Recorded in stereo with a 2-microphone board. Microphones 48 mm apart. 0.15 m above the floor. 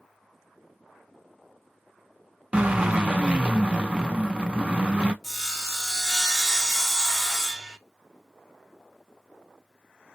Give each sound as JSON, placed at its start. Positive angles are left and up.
{"t": 2.5, "sound": "a drill", "side_deg": -20, "distance_m": 0.6}
{"t": 5.2, "sound": "sawing", "side_deg": 5, "distance_m": 0.9}